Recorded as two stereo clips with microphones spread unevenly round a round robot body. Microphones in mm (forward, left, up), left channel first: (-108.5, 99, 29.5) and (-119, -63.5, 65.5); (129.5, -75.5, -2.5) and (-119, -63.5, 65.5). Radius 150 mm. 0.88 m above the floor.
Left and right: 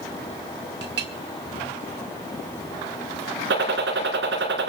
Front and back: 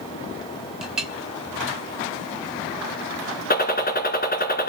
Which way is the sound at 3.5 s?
60° right.